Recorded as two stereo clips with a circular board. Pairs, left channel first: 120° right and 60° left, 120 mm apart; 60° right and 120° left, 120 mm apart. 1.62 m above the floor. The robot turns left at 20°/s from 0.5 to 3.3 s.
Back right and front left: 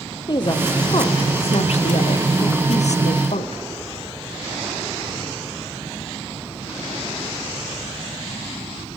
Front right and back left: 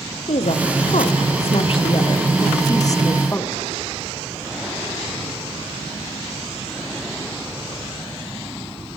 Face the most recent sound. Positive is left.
turn(degrees=-125)